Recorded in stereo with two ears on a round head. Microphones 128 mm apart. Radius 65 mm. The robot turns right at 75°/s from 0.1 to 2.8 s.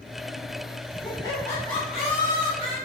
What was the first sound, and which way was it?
Laughter, 115° left.